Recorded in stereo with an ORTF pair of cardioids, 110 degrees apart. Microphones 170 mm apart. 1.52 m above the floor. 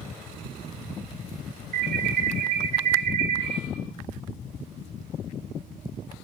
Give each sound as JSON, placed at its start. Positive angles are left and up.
{"t": 1.7, "sound": "an alarm", "azimuth_deg": -60, "distance_m": 4.0}